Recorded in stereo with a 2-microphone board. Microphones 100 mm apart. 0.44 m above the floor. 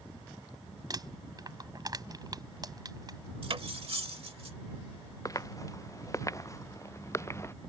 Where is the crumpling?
40° right (ahead or behind).